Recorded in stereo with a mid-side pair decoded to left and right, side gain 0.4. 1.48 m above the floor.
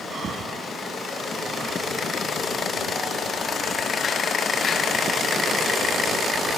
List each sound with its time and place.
0.1 s breathing: 50° right